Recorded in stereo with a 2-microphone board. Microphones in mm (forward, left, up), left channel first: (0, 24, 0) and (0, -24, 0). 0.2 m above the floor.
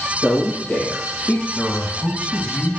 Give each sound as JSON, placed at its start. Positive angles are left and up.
{"t": 0.2, "sound": "a man speaking", "side_deg": 30, "distance_m": 4.5}
{"t": 1.6, "sound": "a man speaking", "side_deg": 30, "distance_m": 1.9}